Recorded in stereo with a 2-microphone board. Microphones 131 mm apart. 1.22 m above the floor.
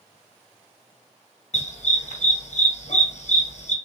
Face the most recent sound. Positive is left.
turn(degrees=65)  # may be behind; listen again after turning